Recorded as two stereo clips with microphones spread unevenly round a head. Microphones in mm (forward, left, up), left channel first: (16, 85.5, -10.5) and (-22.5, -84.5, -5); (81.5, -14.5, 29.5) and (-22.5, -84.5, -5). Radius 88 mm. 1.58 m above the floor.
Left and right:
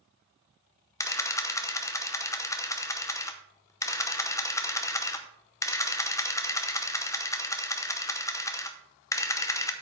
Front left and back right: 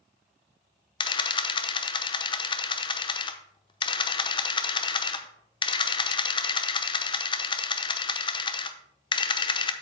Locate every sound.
1.0 s a camera shutter: 5° left, 0.8 m